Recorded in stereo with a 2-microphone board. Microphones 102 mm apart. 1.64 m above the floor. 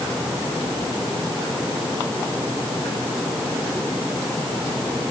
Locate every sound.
Only background noise.